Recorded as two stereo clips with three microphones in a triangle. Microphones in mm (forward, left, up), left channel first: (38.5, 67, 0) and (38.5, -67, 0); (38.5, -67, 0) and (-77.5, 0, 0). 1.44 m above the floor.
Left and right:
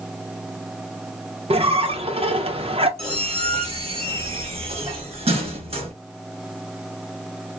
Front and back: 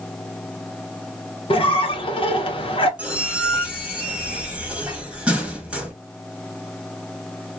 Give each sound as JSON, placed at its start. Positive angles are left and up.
{"t": 1.5, "sound": "a squeak", "azimuth_deg": -65, "distance_m": 0.7}
{"t": 3.0, "sound": "a squeak", "azimuth_deg": -130, "distance_m": 1.1}